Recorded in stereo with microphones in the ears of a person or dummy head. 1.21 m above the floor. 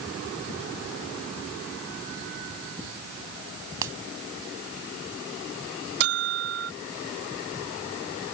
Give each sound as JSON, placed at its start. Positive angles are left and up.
{"t": 3.8, "sound": "a finger snap", "side_deg": -15}
{"t": 6.0, "sound": "a bell", "side_deg": -50}